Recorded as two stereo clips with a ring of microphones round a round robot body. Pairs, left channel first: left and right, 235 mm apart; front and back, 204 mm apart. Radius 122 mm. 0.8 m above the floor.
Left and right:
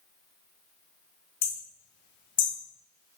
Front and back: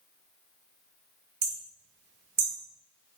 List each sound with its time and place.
1.4 s hammering: 135° left, 1.9 m